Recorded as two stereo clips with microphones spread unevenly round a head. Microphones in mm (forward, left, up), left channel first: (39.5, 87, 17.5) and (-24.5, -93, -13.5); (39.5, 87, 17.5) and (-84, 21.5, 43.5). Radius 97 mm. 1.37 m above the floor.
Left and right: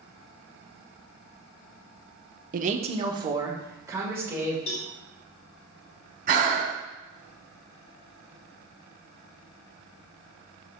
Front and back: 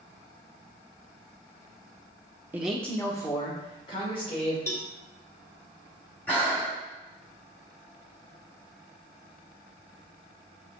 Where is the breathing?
60° right, 1.6 m.